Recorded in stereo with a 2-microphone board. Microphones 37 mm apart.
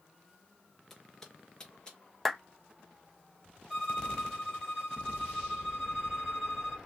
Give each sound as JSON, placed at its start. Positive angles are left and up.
{"t": 0.9, "sound": "footsteps", "side_deg": 10, "distance_m": 1.6}
{"t": 2.2, "sound": "a clap", "side_deg": 0, "distance_m": 0.8}
{"t": 3.7, "sound": "a violin", "side_deg": 5, "distance_m": 1.4}